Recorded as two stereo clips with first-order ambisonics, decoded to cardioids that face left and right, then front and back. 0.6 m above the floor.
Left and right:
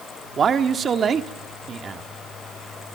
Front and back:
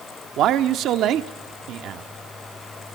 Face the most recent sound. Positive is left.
turn(degrees=-150)